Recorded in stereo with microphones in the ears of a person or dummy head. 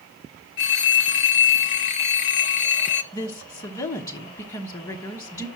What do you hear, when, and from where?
0.6 s a phone ringing: 40° left (ahead or behind), 0.9 m
3.1 s a woman speaking: 25° left (ahead or behind), 0.9 m